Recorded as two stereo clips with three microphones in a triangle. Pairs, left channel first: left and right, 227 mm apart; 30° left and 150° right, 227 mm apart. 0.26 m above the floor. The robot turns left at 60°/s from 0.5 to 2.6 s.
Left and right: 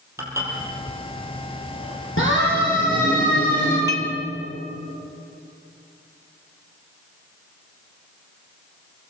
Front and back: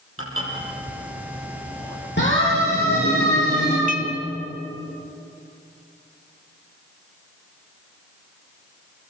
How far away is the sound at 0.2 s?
About 6.5 m.